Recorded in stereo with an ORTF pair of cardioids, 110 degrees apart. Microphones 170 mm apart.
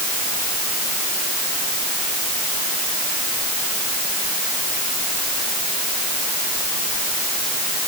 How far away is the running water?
I don't hear running water.